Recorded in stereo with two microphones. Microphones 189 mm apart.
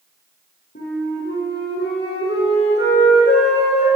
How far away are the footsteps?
I don't hear footsteps.